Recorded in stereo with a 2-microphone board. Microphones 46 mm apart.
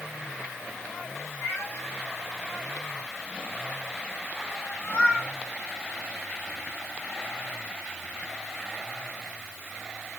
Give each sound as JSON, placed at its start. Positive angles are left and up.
{"t": 1.4, "sound": "a cat meowing", "side_deg": 65, "distance_m": 3.5}